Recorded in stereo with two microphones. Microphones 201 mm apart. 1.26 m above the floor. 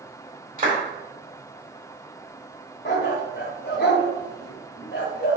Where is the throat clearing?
I don't hear throat clearing.